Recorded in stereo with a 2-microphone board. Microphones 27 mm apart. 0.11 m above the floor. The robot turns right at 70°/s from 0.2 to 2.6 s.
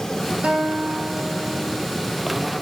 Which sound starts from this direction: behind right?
A guitar, at 0.4 s.